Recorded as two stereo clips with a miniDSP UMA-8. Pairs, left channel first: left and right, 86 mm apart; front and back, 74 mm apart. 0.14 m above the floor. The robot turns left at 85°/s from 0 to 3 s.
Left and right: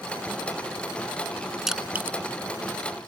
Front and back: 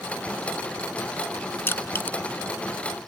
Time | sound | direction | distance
1.7 | crushing | 5° right | ?